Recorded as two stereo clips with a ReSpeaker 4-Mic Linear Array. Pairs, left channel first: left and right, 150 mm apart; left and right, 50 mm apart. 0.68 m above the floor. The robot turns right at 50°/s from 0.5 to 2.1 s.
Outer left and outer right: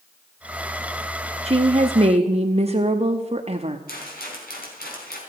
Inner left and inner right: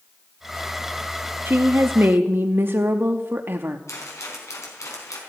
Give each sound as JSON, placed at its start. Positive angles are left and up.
{"t": 1.4, "sound": "a woman speaking", "azimuth_deg": -105, "distance_m": 0.9}
{"t": 3.9, "sound": "a rattle", "side_deg": 85, "distance_m": 4.5}